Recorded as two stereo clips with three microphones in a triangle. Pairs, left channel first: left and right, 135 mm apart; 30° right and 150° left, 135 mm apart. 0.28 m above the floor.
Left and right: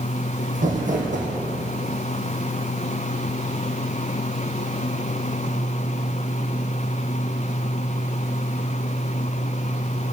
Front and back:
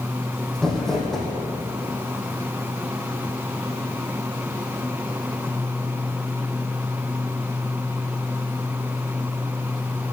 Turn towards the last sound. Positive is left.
turn(degrees=-115)